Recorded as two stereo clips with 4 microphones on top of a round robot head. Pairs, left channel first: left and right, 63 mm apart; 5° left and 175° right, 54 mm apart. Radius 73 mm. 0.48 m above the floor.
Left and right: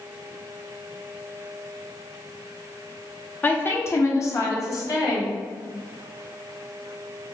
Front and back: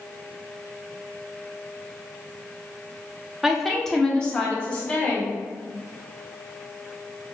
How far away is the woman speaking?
About 0.8 m.